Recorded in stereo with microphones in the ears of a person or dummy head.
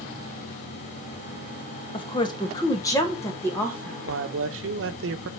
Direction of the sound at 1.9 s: 25° left (ahead or behind).